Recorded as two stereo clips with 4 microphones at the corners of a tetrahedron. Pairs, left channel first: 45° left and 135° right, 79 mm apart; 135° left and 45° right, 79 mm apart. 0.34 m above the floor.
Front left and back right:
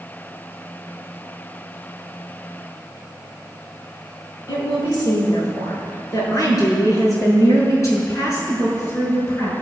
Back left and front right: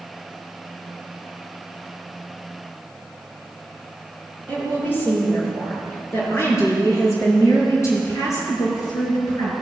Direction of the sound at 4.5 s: 70° left.